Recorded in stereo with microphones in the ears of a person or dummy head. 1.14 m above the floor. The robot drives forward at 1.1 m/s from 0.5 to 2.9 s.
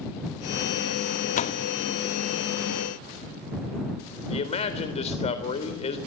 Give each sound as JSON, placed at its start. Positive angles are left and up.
{"t": 1.4, "sound": "a door slam", "side_deg": 40, "distance_m": 1.3}
{"t": 4.3, "sound": "a man speaking", "side_deg": 35, "distance_m": 3.5}